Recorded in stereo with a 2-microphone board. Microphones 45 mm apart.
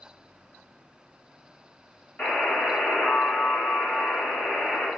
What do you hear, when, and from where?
2.2 s a buzzer: 40° left (ahead or behind), 1.9 m